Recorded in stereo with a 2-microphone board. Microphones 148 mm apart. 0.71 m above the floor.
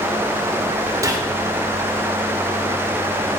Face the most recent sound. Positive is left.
turn(degrees=-25)  # may be behind; listen again after turning